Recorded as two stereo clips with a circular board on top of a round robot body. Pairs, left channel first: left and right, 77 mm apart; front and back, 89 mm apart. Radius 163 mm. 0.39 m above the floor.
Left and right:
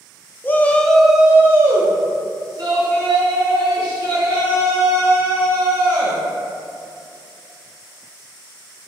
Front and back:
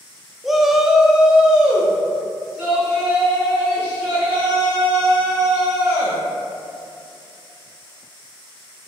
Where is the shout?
95° left, 0.8 m; by 6.2 s 100° right, 3 m.